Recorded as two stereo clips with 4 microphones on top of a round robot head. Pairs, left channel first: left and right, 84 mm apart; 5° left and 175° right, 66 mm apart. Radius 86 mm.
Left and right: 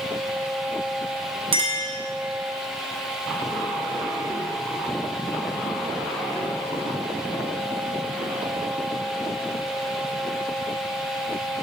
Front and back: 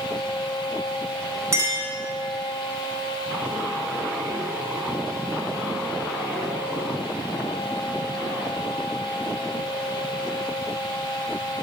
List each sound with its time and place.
1.5 s a clink: 120° right, 0.9 m